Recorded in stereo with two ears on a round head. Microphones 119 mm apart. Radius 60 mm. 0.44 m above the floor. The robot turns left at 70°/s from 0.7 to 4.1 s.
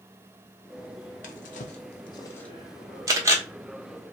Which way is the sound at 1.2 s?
65° left (ahead or behind).